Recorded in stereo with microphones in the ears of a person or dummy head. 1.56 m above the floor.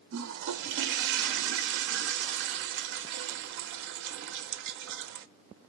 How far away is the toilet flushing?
About 0.6 m.